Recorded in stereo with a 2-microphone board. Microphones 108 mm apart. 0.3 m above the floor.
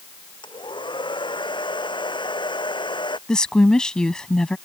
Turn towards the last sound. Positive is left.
turn(degrees=5)  # may be behind; listen again after turning